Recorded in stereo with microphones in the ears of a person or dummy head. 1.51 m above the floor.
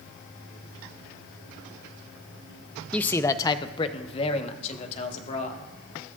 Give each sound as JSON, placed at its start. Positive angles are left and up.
{"t": 2.9, "sound": "a man speaking", "side_deg": 5, "distance_m": 0.5}